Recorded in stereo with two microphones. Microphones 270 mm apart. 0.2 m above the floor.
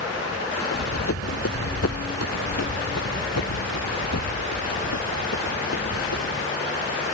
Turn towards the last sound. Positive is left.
turn(degrees=75)  # may be behind; listen again after turning